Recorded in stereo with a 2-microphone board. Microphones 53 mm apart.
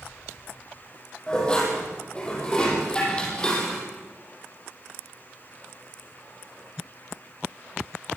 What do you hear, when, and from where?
1.3 s dishes clattering: 20° left (ahead or behind), 7.5 m